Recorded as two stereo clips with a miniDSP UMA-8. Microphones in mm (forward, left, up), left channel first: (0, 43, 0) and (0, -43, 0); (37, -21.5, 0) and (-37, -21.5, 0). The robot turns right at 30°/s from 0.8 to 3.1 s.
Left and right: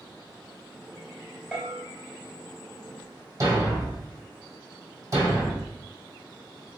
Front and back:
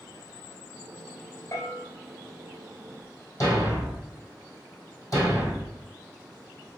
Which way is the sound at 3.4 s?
40° right.